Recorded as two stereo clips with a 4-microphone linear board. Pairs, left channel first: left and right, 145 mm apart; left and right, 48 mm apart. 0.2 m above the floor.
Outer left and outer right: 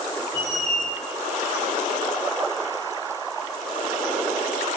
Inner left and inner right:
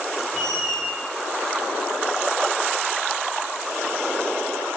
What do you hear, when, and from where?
0.3 s a squeak: 10° left (ahead or behind), 2 m